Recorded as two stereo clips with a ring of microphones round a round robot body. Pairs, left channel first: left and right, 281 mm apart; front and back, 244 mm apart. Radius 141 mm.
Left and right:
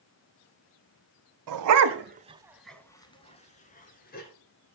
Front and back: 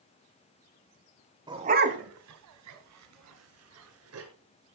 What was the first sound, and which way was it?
A dog barking, 105° right.